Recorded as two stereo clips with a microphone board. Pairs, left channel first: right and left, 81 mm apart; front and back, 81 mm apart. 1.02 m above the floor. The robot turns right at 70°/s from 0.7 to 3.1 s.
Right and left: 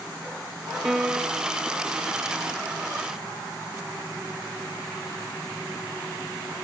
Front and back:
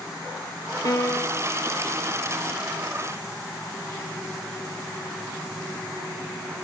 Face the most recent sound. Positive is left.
turn(degrees=160)